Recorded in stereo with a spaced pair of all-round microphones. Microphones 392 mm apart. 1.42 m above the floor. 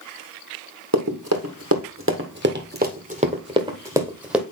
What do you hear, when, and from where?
0.9 s running footsteps: 45° right (ahead or behind), 2 m; by 4.4 s centre (ahead or behind), 2 m